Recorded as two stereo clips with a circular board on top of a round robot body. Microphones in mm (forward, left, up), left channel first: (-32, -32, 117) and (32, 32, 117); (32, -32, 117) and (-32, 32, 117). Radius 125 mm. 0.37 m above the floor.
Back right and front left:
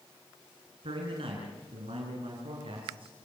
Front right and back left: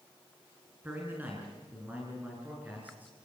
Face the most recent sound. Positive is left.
turn(degrees=65)